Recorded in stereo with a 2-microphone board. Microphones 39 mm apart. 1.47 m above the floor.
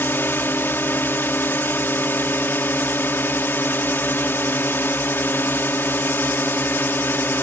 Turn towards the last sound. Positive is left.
turn(degrees=65)  # may be behind; listen again after turning